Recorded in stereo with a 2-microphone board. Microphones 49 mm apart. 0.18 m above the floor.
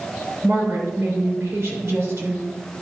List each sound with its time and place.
0.4 s a woman speaking: 60° right (ahead or behind), 3 m